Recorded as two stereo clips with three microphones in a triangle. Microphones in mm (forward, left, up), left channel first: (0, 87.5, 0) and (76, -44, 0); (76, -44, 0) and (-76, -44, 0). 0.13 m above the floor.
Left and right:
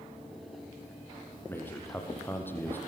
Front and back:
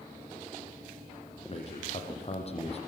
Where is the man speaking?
45° left, 4.5 m.